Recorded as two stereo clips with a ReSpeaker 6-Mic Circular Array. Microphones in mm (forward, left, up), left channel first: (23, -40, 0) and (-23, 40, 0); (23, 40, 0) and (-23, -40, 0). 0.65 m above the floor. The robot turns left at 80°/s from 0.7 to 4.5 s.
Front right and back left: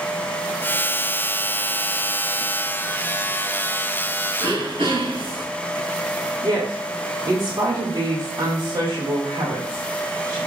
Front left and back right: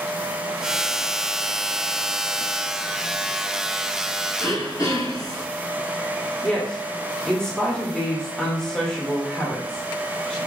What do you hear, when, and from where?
4.4 s throat clearing: 115° left, 4 m; by 5.5 s 105° left, 4 m
6.4 s a woman speaking: 140° left, 2.5 m